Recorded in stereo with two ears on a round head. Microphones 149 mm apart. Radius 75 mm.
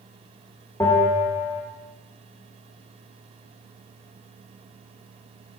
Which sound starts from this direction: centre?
A bell, at 0.8 s.